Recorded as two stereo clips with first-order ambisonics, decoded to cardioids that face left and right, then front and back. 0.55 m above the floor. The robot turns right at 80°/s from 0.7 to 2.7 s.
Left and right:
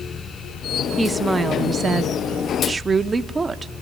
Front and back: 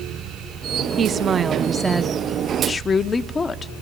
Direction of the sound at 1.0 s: 175° right.